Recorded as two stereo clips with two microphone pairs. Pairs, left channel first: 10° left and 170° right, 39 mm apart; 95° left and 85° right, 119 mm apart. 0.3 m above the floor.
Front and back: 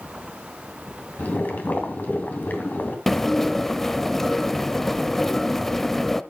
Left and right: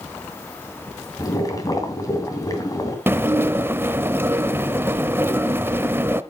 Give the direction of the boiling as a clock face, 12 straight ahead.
11 o'clock.